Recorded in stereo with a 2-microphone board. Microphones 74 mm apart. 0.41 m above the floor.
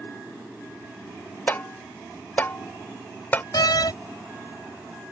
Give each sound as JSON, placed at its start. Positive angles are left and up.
{"t": 1.5, "sound": "tapping", "side_deg": 25}
{"t": 3.5, "sound": "a door slam", "side_deg": 65}